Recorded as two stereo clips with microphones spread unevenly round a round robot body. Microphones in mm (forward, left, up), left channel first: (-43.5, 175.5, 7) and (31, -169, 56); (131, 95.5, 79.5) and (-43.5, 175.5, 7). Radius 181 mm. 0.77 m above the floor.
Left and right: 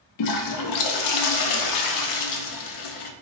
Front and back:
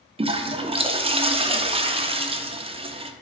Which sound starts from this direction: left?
A toilet flushing, at 0.2 s.